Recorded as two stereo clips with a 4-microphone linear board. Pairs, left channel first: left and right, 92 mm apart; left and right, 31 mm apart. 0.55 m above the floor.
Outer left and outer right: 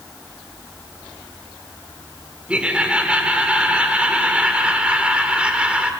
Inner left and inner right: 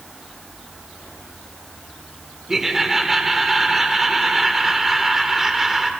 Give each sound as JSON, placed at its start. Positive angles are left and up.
{"t": 2.5, "sound": "laughter", "side_deg": -10, "distance_m": 1.9}